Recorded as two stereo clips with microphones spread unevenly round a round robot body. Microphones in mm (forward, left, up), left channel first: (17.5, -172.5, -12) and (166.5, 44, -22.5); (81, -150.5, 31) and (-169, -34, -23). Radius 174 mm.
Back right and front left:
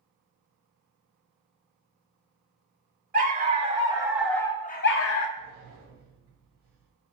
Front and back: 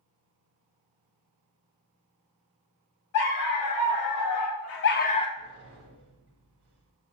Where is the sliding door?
110° left, 0.8 m.